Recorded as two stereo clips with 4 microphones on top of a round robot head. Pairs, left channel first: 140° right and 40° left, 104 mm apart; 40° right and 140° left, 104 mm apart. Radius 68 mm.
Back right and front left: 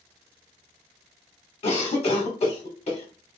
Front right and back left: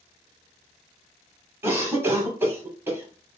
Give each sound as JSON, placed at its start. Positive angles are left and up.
{"t": 1.6, "sound": "a cough", "azimuth_deg": -155, "distance_m": 0.9}